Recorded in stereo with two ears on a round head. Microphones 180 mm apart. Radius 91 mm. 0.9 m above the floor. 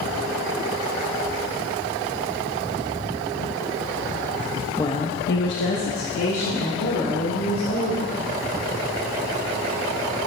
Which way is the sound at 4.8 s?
15° left (ahead or behind).